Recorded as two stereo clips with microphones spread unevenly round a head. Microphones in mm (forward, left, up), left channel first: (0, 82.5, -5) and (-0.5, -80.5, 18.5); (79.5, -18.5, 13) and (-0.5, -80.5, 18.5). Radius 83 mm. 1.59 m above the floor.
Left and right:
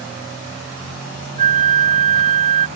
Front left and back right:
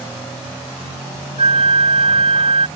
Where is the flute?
130° right.